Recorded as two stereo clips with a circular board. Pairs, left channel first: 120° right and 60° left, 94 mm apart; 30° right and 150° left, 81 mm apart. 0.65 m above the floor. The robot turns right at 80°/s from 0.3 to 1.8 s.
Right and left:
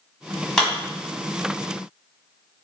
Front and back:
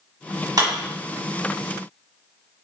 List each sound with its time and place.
0.6 s a clap: 160° left, 1.3 m; by 0.7 s 170° left, 1.3 m